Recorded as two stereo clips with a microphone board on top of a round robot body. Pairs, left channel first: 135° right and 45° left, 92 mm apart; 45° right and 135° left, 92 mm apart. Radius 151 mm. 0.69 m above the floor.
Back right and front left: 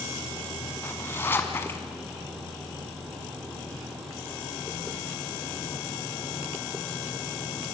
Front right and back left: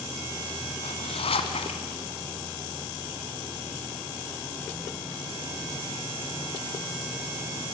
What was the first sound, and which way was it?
A zipper, 65° right.